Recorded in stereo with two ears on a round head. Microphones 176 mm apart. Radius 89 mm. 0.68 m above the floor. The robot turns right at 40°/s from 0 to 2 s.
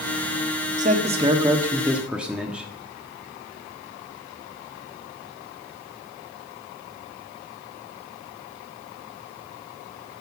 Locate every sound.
0.8 s a man speaking: 55° right, 1.4 m; by 2.7 s 5° right, 1.4 m